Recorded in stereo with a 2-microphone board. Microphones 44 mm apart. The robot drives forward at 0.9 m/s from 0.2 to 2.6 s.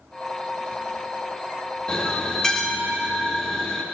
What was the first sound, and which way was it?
A bell, 20° left (ahead or behind).